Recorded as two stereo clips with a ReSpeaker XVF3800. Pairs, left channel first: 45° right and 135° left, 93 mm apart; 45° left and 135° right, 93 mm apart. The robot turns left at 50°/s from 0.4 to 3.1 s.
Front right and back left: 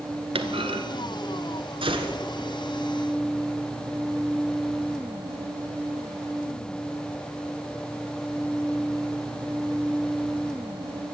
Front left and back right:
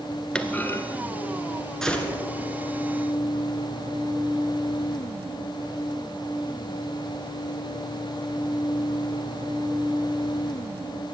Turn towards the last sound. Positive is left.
turn(degrees=65)